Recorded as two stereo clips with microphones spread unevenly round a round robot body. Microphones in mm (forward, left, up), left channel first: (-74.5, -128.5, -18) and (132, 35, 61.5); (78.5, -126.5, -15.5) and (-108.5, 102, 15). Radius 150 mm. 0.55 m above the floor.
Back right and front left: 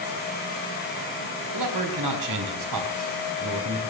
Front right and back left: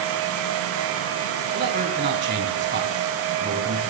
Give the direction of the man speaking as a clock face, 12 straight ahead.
10 o'clock.